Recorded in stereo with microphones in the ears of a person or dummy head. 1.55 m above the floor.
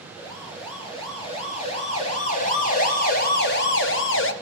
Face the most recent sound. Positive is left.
turn(degrees=60)  # may be behind; listen again after turning